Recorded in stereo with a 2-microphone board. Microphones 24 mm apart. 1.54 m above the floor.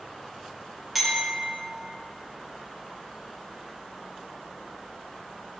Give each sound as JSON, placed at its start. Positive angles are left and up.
{"t": 0.9, "sound": "a clink", "side_deg": -5, "distance_m": 1.0}